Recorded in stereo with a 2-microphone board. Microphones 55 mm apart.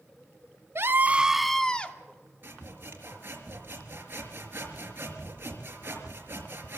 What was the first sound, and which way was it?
A scream, 50° right (ahead or behind).